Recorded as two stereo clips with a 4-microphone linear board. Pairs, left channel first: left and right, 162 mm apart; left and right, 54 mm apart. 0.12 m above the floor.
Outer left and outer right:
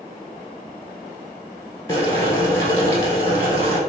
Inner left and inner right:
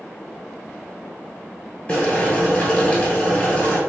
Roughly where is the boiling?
Centre.